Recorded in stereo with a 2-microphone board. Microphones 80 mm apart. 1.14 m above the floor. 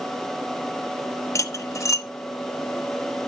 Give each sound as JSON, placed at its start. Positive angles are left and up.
{"t": 1.4, "sound": "cutlery clinking", "side_deg": 40, "distance_m": 1.2}